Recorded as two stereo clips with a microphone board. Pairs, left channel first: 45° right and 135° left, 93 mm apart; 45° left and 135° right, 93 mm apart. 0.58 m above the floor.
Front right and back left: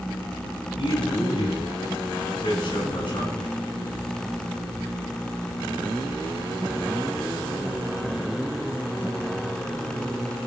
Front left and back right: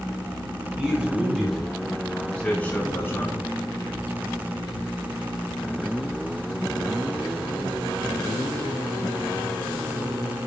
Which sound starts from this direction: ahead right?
A man speaking, at 0.8 s.